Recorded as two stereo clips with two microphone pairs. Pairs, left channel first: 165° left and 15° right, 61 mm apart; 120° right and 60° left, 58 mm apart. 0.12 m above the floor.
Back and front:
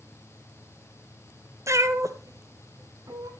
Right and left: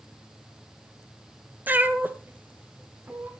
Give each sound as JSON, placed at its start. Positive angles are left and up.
{"t": 1.7, "sound": "a cat meowing", "azimuth_deg": 5, "distance_m": 0.9}